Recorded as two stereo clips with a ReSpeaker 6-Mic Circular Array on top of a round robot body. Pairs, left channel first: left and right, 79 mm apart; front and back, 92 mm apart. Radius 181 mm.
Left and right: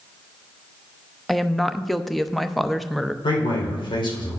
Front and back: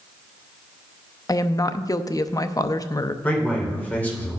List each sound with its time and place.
1.3 s a woman speaking: 5° left, 0.8 m
3.2 s a man speaking: 75° left, 3 m